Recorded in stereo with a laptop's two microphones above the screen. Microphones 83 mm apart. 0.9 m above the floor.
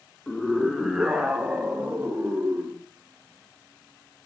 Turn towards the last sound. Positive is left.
turn(degrees=-20)  # may be behind; listen again after turning